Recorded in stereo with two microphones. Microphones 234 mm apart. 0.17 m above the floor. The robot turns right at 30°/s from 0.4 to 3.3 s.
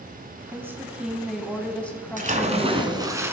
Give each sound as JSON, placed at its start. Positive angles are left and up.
{"t": 0.5, "sound": "a woman speaking", "side_deg": -10, "distance_m": 1.1}
{"t": 2.2, "sound": "a splash", "azimuth_deg": -50, "distance_m": 1.2}